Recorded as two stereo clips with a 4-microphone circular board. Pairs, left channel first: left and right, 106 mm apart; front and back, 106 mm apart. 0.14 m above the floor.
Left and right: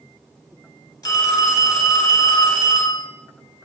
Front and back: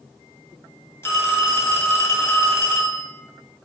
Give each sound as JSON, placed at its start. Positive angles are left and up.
{"t": 1.0, "sound": "a phone ringing", "azimuth_deg": 55, "distance_m": 1.1}